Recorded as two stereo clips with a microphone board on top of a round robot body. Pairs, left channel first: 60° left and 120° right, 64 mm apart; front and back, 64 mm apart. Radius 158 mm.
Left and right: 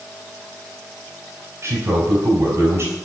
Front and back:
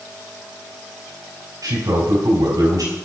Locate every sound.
1.6 s a man speaking: 165° right, 4 m